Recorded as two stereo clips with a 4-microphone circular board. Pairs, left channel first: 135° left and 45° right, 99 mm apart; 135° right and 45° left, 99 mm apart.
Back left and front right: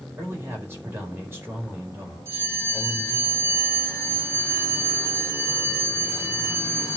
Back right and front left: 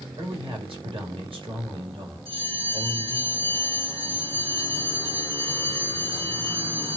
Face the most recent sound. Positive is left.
turn(degrees=15)